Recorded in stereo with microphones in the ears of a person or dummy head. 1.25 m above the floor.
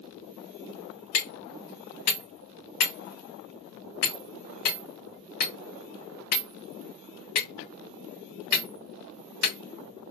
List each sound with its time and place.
1.1 s hammering: 45° left (ahead or behind), 1.2 m